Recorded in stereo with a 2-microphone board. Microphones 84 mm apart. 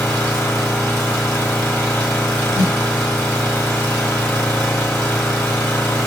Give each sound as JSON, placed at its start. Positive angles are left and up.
{"t": 0.0, "sound": "an engine running", "side_deg": 20, "distance_m": 1.3}
{"t": 2.5, "sound": "a snare drum", "side_deg": 40, "distance_m": 1.2}